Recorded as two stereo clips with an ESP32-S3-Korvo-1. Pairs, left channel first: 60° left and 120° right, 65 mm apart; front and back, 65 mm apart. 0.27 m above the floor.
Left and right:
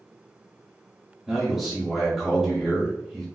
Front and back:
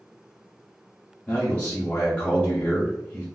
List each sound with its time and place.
1.3 s a man speaking: 35° right, 0.9 m